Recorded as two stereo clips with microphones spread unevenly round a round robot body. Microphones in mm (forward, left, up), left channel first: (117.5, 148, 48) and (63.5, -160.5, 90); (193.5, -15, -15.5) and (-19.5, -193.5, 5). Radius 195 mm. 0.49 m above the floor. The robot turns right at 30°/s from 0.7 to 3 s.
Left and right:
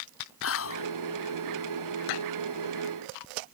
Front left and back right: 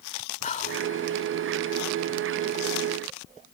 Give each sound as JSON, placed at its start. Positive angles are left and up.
{"t": 0.4, "sound": "whispering", "azimuth_deg": 100}